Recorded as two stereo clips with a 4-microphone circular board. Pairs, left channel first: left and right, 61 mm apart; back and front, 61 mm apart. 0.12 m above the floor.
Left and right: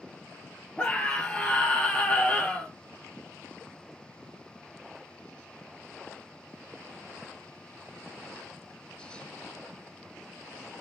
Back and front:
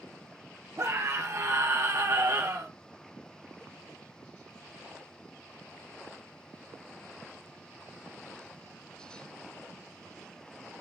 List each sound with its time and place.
0.8 s a scream: 25° left, 2.0 m